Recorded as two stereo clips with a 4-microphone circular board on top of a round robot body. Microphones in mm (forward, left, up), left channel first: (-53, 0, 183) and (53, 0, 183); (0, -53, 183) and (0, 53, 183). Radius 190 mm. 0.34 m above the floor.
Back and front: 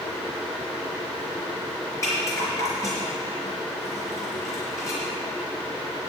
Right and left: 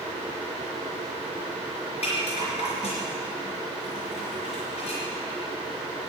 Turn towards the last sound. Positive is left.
turn(degrees=-115)